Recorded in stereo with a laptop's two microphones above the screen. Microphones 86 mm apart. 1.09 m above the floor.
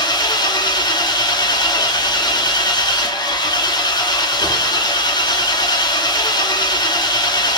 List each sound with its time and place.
0.0 s an engine running: 50° left (ahead or behind), 0.9 m